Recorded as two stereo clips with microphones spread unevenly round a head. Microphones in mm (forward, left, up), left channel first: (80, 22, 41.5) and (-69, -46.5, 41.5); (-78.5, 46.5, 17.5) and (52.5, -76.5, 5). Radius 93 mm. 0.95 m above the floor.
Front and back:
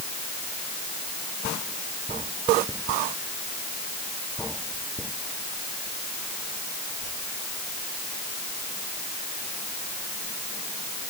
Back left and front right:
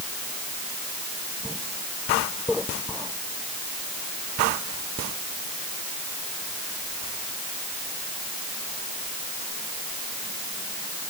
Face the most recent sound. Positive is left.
No sound to turn to.